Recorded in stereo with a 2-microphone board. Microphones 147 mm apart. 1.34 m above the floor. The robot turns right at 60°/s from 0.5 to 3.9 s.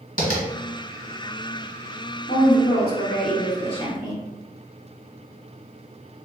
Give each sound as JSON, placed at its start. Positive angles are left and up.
{"t": 0.2, "sound": "tapping", "side_deg": 60, "distance_m": 0.9}
{"t": 2.3, "sound": "a woman speaking", "azimuth_deg": 55, "distance_m": 0.8}